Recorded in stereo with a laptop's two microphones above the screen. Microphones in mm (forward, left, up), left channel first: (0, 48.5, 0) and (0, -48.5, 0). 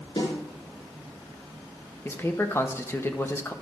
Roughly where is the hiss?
I don't hear a hiss.